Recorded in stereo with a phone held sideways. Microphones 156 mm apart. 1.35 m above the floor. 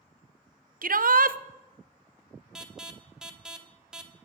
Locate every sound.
0.8 s a shout: 70° right (ahead or behind), 0.6 m
2.5 s an alarm: 5° right (ahead or behind), 1.1 m